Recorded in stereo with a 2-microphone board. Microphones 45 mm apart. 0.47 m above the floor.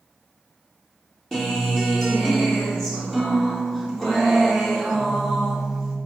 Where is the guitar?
10° left (ahead or behind), 1.0 m.